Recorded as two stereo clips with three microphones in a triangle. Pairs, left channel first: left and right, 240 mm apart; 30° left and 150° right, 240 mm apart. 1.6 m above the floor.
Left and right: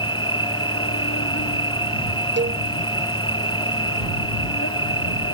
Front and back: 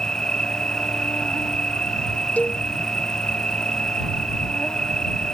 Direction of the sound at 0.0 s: 115° left.